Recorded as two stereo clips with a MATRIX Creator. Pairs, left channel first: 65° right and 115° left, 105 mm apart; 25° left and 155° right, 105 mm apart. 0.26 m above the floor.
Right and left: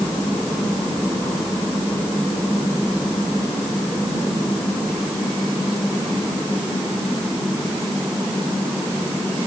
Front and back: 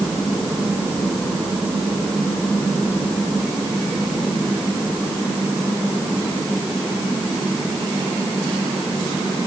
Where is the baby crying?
No baby crying in this recording.